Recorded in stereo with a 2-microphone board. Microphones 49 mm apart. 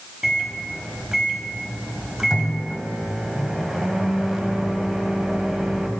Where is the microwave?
10° right (ahead or behind), 1.0 m.